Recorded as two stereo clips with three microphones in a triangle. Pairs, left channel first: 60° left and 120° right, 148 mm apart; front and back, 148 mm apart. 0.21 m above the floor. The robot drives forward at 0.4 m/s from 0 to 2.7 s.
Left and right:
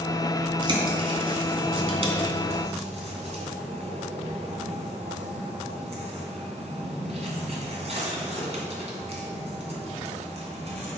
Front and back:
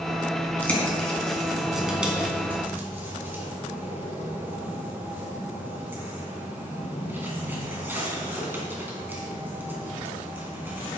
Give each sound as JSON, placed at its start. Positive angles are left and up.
{"t": 0.6, "sound": "a bird", "azimuth_deg": -75, "distance_m": 2.0}